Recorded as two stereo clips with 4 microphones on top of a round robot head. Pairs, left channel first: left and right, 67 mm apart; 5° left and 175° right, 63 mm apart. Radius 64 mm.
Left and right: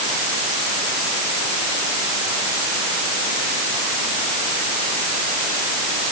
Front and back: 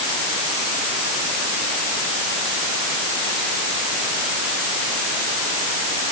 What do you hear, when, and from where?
Only background noise.